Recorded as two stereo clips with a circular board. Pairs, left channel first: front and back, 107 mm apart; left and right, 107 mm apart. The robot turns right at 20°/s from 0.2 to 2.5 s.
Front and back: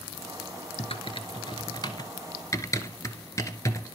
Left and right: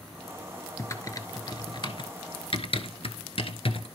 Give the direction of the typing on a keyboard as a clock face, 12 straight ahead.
11 o'clock.